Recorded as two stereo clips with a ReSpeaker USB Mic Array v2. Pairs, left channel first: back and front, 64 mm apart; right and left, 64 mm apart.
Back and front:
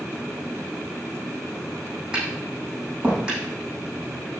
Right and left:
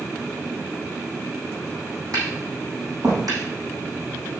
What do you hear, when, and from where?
2.1 s tapping: 75° left, 7 m